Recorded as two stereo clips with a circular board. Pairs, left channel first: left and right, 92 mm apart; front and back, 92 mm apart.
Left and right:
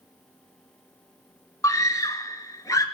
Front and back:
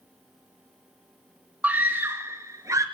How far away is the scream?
About 1.7 m.